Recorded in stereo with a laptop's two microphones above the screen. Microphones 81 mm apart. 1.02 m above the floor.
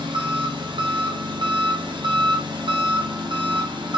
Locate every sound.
0.0 s an engine running: 65° right (ahead or behind), 0.9 m